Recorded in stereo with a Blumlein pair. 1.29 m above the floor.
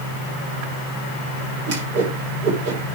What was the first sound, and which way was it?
A whoosh, 45° right.